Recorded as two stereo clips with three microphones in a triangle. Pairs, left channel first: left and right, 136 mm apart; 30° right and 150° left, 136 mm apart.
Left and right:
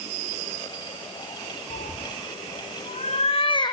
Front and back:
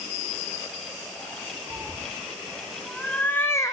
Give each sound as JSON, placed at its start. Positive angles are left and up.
{"t": 1.7, "sound": "a cat meowing", "azimuth_deg": 70, "distance_m": 2.0}